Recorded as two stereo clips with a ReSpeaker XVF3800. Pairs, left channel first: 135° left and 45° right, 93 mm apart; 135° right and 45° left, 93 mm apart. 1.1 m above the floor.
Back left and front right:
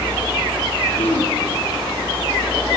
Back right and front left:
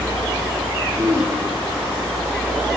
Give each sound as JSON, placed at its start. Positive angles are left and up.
{"t": 1.0, "sound": "throat clearing", "azimuth_deg": 110, "distance_m": 5.0}